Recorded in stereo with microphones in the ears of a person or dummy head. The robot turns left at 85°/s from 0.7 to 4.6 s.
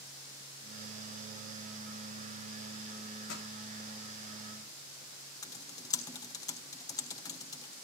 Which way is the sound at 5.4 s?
15° left (ahead or behind).